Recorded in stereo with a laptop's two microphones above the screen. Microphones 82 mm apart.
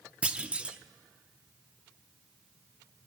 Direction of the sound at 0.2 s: 15° right (ahead or behind).